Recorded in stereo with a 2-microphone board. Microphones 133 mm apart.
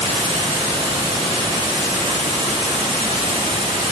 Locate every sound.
0.0 s running water: 45° right (ahead or behind), 3.5 m